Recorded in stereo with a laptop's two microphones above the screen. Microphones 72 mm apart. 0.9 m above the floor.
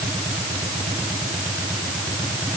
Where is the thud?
No thud in this recording.